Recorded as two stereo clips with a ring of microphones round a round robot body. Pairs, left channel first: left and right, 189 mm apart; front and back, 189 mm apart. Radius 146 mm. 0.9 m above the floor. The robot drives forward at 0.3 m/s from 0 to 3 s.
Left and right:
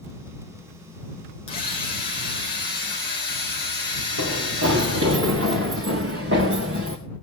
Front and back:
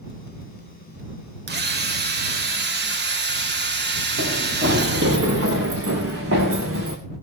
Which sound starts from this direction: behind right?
Running footsteps, at 4.2 s.